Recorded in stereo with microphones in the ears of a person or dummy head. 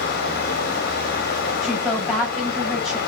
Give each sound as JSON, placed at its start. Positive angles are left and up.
{"t": 0.0, "sound": "running water", "side_deg": 60, "distance_m": 1.9}
{"t": 1.6, "sound": "a woman speaking", "side_deg": 0, "distance_m": 4.5}